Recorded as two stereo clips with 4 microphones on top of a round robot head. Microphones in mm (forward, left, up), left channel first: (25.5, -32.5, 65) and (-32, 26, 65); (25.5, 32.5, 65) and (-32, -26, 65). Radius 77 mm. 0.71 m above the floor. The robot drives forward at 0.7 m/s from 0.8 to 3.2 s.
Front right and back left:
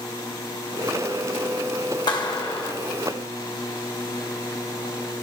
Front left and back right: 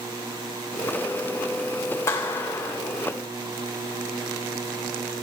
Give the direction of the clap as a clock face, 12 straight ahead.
12 o'clock.